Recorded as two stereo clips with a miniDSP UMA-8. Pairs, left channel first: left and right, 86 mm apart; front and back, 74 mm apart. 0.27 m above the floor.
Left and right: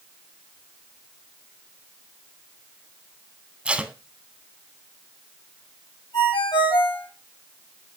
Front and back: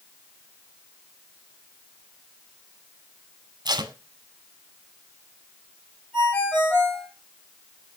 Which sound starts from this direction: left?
A ringtone, at 6.1 s.